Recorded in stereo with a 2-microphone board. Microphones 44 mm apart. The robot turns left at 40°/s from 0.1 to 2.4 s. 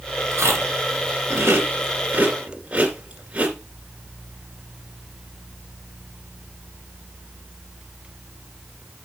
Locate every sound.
0.3 s chewing: 70° right (ahead or behind), 2.5 m; by 3.5 s 20° right (ahead or behind), 2.5 m